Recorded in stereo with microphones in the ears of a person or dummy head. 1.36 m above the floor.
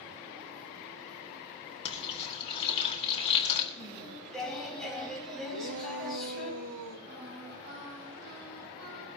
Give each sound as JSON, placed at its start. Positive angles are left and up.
{"t": 1.9, "sound": "frying", "side_deg": 35, "distance_m": 3.0}
{"t": 3.8, "sound": "singing", "side_deg": 0, "distance_m": 5.5}
{"t": 5.5, "sound": "a shout", "side_deg": -65, "distance_m": 2.5}
{"t": 7.1, "sound": "singing", "side_deg": -60, "distance_m": 10.0}